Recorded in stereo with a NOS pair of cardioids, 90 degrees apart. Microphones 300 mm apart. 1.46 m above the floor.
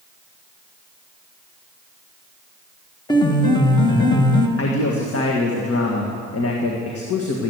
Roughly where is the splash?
No splash in this recording.